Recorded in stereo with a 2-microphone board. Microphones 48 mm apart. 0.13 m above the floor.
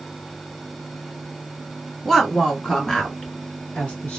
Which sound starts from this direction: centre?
A woman speaking, at 2.0 s.